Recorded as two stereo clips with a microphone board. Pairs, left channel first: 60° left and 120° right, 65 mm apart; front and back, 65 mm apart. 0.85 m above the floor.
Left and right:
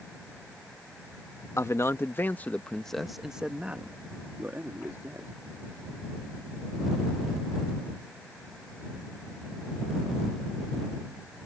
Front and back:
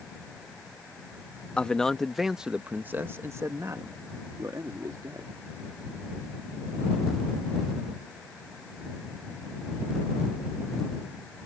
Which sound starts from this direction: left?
A man speaking, at 1.6 s.